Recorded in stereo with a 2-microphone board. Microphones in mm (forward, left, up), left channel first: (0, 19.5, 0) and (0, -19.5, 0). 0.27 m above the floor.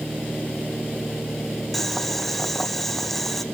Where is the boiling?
10° left (ahead or behind), 2.5 m.